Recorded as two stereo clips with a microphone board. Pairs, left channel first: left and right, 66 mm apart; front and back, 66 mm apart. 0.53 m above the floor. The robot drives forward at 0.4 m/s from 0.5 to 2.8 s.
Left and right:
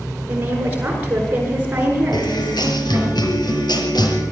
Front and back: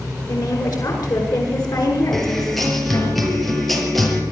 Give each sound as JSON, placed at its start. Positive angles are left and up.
{"t": 0.3, "sound": "a woman speaking", "azimuth_deg": -25, "distance_m": 8.5}
{"t": 2.1, "sound": "a guitar", "azimuth_deg": 85, "distance_m": 5.5}